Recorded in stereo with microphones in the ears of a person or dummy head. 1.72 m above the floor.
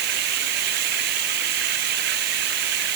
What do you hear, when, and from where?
0.0 s running water: 60° right (ahead or behind)